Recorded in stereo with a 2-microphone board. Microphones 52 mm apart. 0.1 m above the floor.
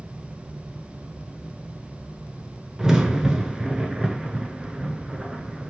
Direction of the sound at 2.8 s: 10° right (ahead or behind).